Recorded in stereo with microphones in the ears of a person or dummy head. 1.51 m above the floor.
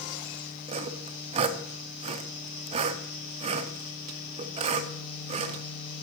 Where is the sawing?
30° right (ahead or behind), 0.5 m.